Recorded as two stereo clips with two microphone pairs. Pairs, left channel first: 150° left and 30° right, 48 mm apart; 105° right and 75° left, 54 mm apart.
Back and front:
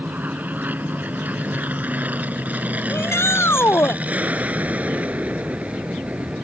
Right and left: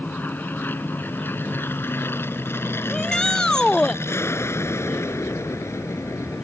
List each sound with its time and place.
0.0 s an aircraft: 65° right; by 6.5 s 85° right
2.9 s a shout: 175° left